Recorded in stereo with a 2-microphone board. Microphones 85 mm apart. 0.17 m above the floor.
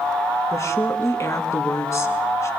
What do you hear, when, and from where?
0.5 s a woman speaking: 35° left (ahead or behind), 1.6 m